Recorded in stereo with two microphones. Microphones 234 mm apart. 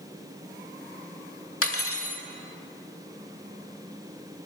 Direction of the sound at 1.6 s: 75° left (ahead or behind).